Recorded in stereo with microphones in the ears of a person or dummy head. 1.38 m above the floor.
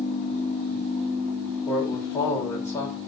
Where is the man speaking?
20° left (ahead or behind), 5.5 m.